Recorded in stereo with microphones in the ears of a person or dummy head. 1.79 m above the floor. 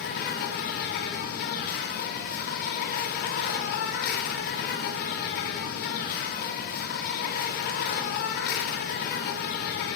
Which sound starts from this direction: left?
An insect, at 0.0 s.